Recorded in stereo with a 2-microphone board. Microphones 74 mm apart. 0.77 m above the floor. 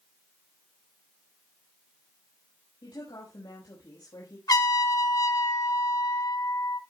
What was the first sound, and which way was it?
A woman speaking, 80° left.